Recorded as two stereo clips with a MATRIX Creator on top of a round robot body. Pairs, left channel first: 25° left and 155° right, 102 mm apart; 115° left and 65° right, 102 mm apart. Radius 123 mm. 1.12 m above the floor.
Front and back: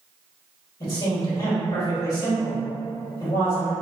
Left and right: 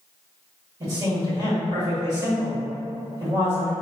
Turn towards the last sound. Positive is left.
turn(degrees=-10)